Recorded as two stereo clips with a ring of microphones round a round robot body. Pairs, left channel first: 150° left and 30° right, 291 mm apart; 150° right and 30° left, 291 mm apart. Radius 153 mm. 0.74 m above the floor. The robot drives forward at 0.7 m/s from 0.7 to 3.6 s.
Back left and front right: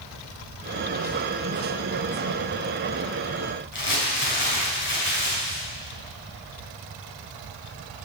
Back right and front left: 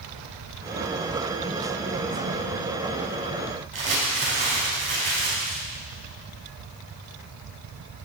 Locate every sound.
3.7 s crumpling: 95° left, 4.5 m